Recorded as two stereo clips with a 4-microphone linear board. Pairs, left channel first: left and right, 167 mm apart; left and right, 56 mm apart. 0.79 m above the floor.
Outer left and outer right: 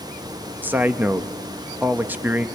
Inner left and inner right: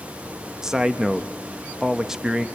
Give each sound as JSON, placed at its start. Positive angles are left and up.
{"t": 0.6, "sound": "a man speaking", "side_deg": -10, "distance_m": 0.7}